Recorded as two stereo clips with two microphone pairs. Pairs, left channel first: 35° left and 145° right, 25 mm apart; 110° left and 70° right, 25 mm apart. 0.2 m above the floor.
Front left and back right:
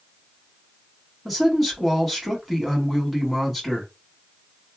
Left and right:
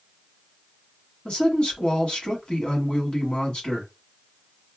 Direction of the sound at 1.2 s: 120° left.